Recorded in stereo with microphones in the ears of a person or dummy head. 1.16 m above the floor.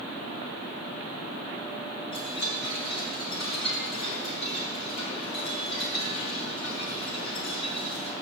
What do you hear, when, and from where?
2.1 s a chime: 65° left (ahead or behind), 5.5 m